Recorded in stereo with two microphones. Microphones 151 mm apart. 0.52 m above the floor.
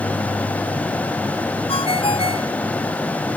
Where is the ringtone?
40° left (ahead or behind).